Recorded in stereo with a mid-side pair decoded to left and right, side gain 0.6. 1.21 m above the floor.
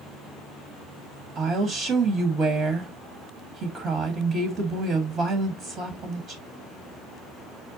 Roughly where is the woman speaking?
Ahead right.